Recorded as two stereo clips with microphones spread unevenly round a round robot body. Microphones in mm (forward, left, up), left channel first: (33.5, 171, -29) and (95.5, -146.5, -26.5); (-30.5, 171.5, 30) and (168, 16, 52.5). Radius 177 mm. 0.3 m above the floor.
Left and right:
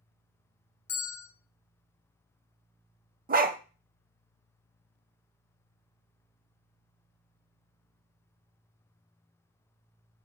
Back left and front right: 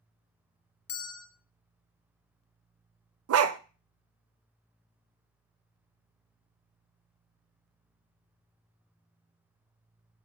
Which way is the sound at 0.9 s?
175° right.